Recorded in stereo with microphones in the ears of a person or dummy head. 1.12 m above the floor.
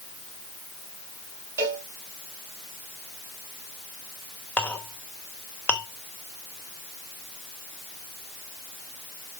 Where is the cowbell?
15° right (ahead or behind), 2.5 m.